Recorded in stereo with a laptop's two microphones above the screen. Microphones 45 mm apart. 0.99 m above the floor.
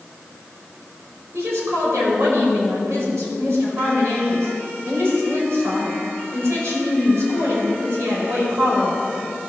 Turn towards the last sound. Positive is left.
turn(degrees=-80)